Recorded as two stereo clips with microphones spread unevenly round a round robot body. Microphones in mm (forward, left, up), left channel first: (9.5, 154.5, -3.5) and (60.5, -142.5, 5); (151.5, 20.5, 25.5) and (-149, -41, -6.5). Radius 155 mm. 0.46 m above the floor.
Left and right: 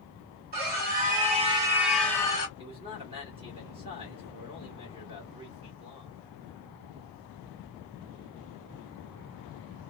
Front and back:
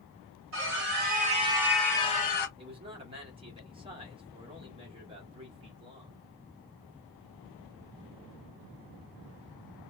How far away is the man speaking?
About 1.4 m.